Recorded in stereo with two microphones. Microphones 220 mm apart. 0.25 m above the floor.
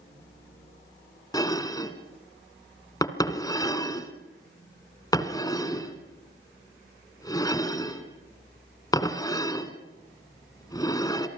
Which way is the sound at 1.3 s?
15° left (ahead or behind).